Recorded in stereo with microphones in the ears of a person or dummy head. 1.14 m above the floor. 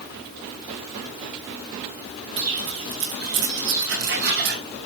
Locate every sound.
2.4 s footsteps: 70° right (ahead or behind), 5 m; by 4.6 s 55° right (ahead or behind), 3 m